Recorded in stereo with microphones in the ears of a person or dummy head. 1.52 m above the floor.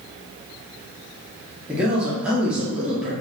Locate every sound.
1.7 s a man speaking: 10° right (ahead or behind), 1.1 m